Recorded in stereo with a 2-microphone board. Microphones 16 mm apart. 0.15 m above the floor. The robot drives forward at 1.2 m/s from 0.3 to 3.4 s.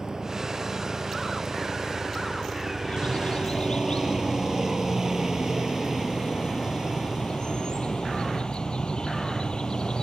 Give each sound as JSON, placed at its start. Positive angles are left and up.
{"t": 0.0, "sound": "a helicopter", "side_deg": -40}
{"t": 2.8, "sound": "a bird", "side_deg": 75}